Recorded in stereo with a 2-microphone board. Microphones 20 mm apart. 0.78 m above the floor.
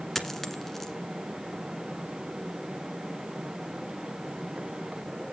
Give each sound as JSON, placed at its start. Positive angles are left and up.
{"t": 0.1, "sound": "a dropped coin", "side_deg": 15, "distance_m": 1.4}